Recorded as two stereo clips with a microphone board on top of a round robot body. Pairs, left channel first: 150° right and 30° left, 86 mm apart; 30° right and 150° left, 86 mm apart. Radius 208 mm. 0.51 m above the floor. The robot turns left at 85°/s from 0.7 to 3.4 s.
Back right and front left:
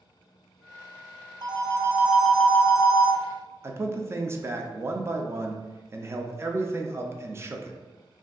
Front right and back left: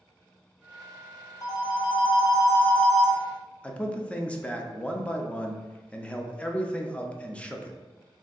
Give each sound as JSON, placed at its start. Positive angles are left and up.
{"t": 1.4, "sound": "a phone ringing", "azimuth_deg": 10, "distance_m": 0.7}
{"t": 3.6, "sound": "a man speaking", "azimuth_deg": 35, "distance_m": 0.6}